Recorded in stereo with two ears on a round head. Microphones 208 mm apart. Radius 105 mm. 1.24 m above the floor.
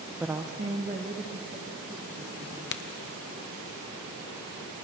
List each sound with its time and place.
0.2 s a woman speaking: 5° right (ahead or behind), 0.6 m; by 2.6 s 35° right (ahead or behind), 4 m
2.7 s a crack: 50° left (ahead or behind), 0.8 m